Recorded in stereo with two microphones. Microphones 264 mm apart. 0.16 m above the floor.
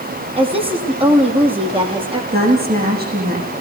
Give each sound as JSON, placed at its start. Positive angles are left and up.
{"t": 0.4, "sound": "a woman speaking", "side_deg": -20, "distance_m": 6.5}
{"t": 2.3, "sound": "a woman speaking", "side_deg": -35, "distance_m": 10.0}